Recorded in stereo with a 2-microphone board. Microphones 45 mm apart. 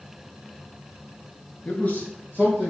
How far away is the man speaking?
About 1.2 m.